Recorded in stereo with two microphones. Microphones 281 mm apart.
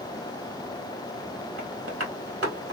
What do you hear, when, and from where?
1.6 s tapping: 55° right (ahead or behind), 1.9 m